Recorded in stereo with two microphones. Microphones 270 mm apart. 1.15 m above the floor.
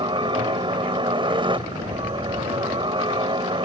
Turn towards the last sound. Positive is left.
turn(degrees=-20)  # may be behind; listen again after turning